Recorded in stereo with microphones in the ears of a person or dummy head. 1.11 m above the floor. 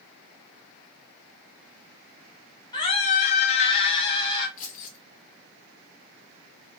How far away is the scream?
About 0.6 m.